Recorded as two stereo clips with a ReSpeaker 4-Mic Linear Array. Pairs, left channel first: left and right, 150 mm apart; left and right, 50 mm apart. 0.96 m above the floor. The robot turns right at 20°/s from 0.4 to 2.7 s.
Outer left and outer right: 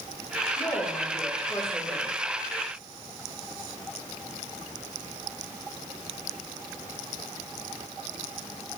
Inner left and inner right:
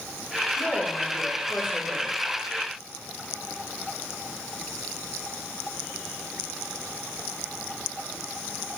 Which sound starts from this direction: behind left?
A woman speaking, at 0.6 s.